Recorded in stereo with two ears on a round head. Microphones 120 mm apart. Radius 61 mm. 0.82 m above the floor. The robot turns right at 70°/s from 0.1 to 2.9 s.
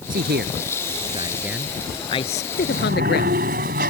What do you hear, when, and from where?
0.1 s a man speaking: 70° right (ahead or behind); by 3.6 s 85° left
2.6 s a sliding door: 90° right; by 3.9 s 70° right (ahead or behind)